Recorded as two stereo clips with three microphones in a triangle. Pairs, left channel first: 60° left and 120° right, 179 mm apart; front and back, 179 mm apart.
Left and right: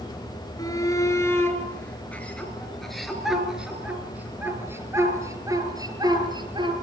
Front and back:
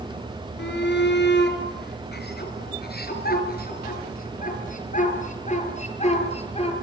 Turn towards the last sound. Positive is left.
turn(degrees=-55)